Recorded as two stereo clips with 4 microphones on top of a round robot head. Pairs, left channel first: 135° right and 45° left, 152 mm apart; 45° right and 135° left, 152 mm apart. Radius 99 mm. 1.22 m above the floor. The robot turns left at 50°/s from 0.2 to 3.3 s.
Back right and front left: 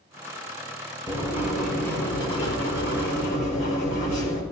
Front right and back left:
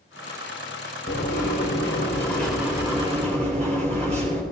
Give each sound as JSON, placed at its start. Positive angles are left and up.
{"t": 1.1, "sound": "writing", "azimuth_deg": -65, "distance_m": 4.0}